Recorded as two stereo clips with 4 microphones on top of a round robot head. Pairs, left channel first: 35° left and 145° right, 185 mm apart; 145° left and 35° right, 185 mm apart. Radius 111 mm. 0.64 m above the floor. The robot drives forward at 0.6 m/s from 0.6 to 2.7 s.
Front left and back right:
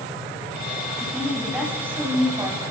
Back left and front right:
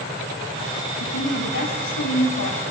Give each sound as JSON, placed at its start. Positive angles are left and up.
{"t": 1.0, "sound": "a woman speaking", "azimuth_deg": 130, "distance_m": 4.0}